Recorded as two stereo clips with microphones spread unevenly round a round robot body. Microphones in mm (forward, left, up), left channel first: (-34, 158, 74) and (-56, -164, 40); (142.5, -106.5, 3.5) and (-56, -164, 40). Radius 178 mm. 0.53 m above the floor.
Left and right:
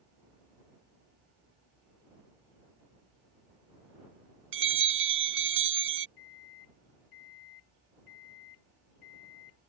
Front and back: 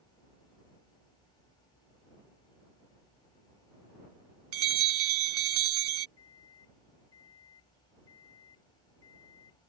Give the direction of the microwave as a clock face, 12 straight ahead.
9 o'clock.